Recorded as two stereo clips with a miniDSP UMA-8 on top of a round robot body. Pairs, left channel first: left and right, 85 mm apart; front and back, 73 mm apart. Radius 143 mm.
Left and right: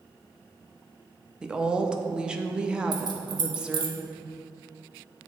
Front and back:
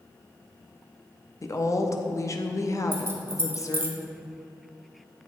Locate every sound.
1.4 s a woman speaking: 15° right, 0.8 m
2.9 s keys jangling: 120° right, 0.8 m